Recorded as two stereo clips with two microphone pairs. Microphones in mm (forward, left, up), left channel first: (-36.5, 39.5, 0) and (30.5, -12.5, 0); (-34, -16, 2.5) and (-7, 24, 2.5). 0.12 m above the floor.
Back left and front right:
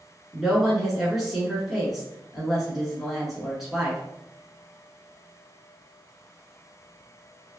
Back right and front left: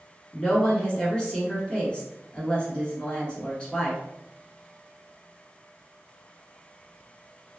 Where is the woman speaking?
120° right, 1.3 m.